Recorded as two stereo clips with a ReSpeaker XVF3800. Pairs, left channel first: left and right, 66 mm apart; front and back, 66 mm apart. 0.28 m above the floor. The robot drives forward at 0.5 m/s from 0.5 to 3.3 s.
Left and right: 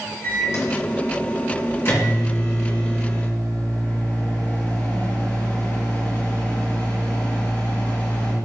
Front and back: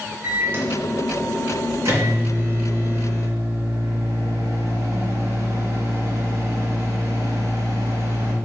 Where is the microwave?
125° left, 3 m; by 8.3 s 145° left, 3.5 m.